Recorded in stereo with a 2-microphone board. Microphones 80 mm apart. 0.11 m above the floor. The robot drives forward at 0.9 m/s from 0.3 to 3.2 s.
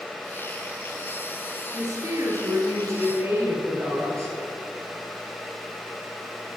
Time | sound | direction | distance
1.7 | a woman speaking | 45° right (ahead or behind) | 1.6 m